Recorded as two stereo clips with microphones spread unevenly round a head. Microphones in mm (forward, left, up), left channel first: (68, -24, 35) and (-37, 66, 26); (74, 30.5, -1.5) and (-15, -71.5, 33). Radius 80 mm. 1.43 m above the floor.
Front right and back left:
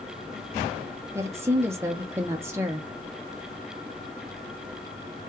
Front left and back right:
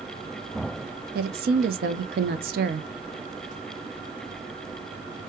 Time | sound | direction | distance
1.1 | a woman speaking | 145° right | 0.6 m